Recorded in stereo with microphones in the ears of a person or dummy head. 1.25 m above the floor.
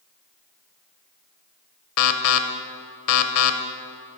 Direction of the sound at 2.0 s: 70° left (ahead or behind).